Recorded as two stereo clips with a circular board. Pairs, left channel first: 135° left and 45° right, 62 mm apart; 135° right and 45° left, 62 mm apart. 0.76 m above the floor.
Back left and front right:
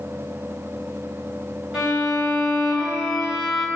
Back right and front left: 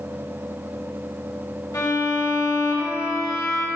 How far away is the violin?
About 5 m.